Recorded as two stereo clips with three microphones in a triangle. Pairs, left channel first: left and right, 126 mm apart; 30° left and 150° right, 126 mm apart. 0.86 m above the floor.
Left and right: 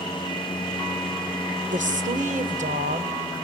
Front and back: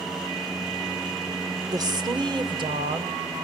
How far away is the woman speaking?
About 2 m.